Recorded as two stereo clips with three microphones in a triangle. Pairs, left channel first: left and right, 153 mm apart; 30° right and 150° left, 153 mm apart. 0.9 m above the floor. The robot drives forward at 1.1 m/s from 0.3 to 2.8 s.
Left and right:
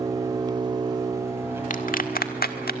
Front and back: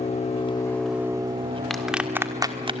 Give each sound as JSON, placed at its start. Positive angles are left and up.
{"t": 0.0, "sound": "an engine running", "azimuth_deg": -35, "distance_m": 0.8}
{"t": 1.7, "sound": "a clap", "azimuth_deg": 60, "distance_m": 1.8}